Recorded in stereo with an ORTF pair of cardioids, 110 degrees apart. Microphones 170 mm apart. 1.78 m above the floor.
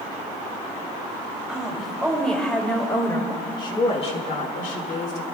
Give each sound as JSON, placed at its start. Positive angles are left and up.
{"t": 1.5, "sound": "a woman speaking", "azimuth_deg": -5, "distance_m": 4.5}